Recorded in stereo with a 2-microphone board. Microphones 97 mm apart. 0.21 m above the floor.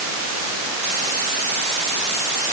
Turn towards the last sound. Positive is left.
No sound to turn to.